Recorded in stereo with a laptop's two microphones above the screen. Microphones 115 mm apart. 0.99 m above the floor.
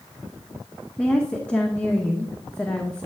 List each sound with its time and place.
1.0 s a woman speaking: 10° left (ahead or behind), 0.8 m